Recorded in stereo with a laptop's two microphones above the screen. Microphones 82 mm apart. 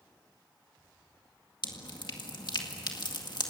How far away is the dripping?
About 2.0 m.